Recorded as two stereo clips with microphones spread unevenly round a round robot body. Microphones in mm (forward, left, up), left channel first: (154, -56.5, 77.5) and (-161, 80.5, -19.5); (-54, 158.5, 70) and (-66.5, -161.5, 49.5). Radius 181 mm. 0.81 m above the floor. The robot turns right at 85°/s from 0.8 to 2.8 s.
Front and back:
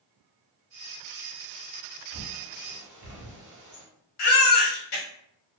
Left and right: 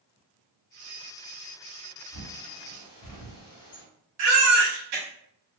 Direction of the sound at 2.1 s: 55° left.